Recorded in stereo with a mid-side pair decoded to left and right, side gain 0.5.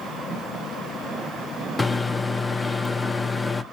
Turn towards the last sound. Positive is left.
turn(degrees=20)